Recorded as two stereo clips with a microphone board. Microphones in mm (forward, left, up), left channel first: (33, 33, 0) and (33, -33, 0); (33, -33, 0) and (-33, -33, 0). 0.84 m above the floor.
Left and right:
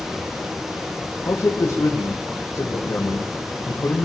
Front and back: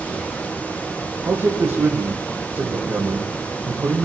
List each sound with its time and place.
1.2 s a man speaking: 135° left, 3 m